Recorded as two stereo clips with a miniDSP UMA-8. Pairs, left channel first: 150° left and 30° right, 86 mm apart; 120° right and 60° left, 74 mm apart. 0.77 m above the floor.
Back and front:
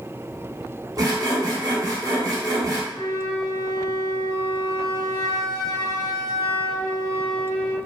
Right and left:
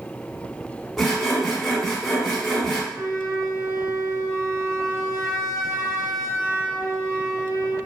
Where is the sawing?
30° right, 0.9 m.